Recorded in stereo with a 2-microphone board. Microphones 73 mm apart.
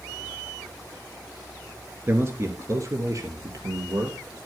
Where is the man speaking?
30° right (ahead or behind), 1.4 m; by 4.4 s 60° right (ahead or behind), 2.5 m.